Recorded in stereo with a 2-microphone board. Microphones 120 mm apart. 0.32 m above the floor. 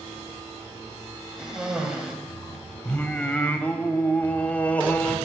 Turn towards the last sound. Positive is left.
turn(degrees=15)  # may be behind; listen again after turning